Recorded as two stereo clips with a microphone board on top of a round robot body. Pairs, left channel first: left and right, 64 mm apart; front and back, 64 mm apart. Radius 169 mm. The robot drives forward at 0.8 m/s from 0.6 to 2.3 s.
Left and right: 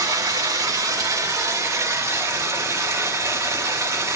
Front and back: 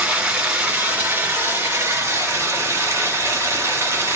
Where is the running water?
110° right, 2.5 m; by 4.2 s 130° right, 3.5 m.